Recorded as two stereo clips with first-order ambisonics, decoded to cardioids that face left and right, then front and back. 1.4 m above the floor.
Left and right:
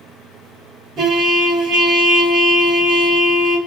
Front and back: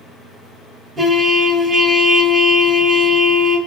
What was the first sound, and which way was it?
A trumpet, 135° right.